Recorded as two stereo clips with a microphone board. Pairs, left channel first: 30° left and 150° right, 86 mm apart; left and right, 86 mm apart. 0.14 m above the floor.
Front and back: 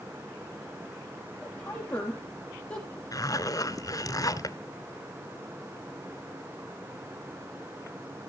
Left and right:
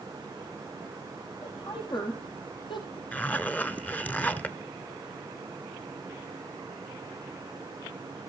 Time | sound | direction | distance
1.4 | a woman speaking | 105° left | 5.5 m
3.1 | a zipper | 25° left | 0.8 m